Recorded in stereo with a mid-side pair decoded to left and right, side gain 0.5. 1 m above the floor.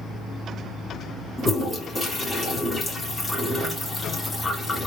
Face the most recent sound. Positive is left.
turn(degrees=25)